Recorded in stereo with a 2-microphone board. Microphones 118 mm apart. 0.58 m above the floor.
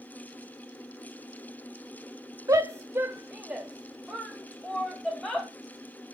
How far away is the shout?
About 1.0 m.